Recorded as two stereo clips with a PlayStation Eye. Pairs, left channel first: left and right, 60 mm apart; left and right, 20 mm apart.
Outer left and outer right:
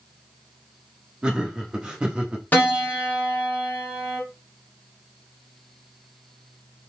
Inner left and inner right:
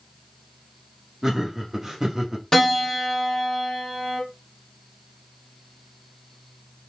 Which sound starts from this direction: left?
A piano, at 2.5 s.